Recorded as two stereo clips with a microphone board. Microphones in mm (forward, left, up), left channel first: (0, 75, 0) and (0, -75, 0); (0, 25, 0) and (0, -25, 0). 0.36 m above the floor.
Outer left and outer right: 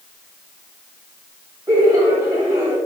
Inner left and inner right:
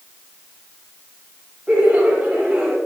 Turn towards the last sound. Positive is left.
turn(degrees=-25)  # may be behind; listen again after turning